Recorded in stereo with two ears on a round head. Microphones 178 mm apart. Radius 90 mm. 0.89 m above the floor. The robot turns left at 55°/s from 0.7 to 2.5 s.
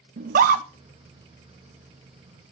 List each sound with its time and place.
0.2 s a scream: 45° right (ahead or behind), 0.7 m